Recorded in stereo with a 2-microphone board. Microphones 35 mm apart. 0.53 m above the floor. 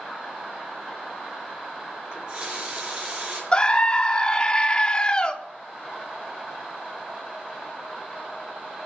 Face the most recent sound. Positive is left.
turn(degrees=25)  # may be behind; listen again after turning